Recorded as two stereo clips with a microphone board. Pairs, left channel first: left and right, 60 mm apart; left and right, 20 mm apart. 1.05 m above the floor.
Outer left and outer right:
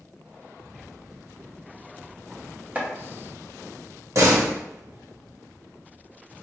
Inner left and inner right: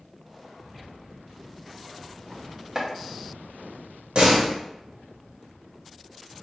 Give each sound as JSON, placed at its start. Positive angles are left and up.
{"t": 2.8, "sound": "chopping", "side_deg": -30, "distance_m": 0.7}
{"t": 4.2, "sound": "a door slam", "side_deg": -50, "distance_m": 0.8}